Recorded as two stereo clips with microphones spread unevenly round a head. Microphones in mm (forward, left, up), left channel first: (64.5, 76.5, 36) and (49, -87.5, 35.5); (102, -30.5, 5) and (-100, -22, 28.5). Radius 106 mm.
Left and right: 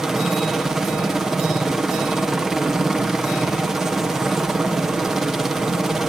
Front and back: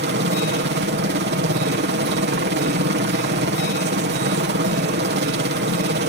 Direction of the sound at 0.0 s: 175° left.